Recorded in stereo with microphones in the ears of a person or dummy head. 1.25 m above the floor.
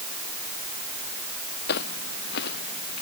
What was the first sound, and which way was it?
Footsteps, 65° left (ahead or behind).